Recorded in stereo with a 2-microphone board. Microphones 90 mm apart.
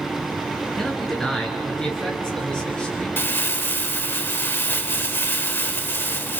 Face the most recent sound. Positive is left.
turn(degrees=25)  # may be behind; listen again after turning